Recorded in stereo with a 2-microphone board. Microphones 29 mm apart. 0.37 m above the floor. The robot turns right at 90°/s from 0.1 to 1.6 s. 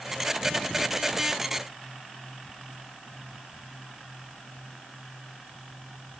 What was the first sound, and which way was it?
Only background noise.